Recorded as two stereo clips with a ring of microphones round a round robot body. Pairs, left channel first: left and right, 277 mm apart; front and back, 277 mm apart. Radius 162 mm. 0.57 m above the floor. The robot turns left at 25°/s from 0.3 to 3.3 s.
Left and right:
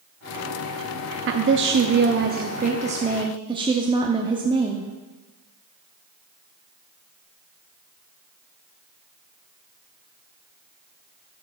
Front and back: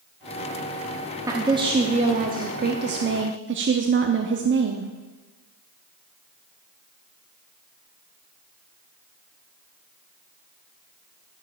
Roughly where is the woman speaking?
Right.